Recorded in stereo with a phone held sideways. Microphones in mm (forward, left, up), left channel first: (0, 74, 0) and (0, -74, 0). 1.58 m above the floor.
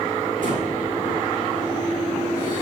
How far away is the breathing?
About 3.5 m.